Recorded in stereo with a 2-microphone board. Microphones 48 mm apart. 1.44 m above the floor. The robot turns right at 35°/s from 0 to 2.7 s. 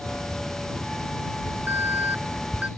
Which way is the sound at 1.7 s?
80° right.